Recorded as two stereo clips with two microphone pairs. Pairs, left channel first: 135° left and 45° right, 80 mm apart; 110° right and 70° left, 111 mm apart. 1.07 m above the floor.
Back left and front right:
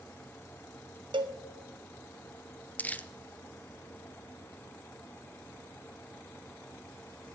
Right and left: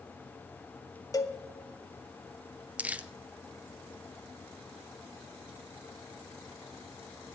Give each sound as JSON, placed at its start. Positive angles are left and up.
{"t": 1.1, "sound": "a cowbell", "azimuth_deg": -50, "distance_m": 1.1}
{"t": 2.8, "sound": "crumpling", "azimuth_deg": 110, "distance_m": 0.6}